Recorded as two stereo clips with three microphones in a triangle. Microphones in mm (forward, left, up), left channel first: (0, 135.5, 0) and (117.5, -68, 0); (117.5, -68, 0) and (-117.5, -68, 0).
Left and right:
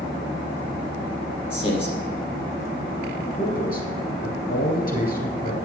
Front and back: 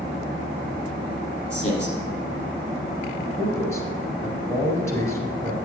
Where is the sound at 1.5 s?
55° left, 3.5 m.